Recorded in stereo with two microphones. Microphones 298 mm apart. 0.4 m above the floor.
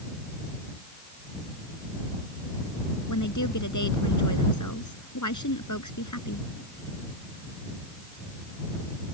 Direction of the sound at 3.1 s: 80° left.